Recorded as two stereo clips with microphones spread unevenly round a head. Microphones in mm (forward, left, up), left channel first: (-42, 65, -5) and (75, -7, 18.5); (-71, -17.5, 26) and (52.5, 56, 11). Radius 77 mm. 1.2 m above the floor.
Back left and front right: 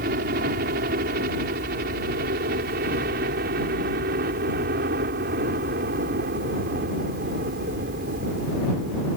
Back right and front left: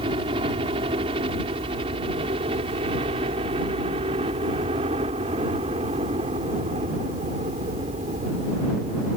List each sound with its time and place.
0.0 s a helicopter: 25° right